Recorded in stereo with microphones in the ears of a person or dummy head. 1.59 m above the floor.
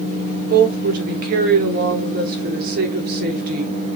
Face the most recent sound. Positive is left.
turn(degrees=-55)  # may be behind; listen again after turning